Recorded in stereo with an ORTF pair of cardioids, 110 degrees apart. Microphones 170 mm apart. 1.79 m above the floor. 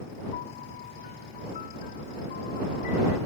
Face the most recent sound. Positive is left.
turn(degrees=60)